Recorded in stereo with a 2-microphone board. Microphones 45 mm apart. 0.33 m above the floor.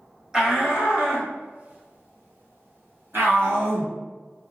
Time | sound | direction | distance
0.3 | a shout | 15° right (ahead or behind) | 1.3 m